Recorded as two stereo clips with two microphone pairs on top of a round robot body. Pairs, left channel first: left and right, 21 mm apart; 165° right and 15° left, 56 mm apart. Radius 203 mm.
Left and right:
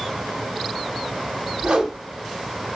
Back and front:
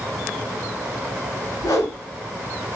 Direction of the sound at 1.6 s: 125° right.